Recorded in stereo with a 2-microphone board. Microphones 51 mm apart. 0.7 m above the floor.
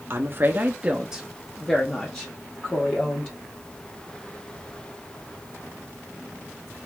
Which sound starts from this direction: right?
A woman speaking, at 0.1 s.